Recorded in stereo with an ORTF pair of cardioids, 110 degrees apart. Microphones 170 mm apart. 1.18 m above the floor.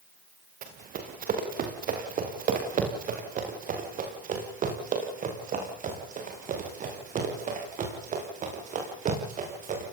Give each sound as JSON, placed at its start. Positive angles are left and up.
{"t": 0.6, "sound": "running footsteps", "azimuth_deg": -55, "distance_m": 7.0}